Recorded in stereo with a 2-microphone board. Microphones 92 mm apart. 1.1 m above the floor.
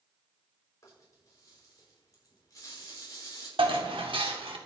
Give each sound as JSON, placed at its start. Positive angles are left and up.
{"t": 0.8, "sound": "a rattle", "side_deg": 40, "distance_m": 5.5}
{"t": 3.6, "sound": "dishes clattering", "side_deg": -75, "distance_m": 1.8}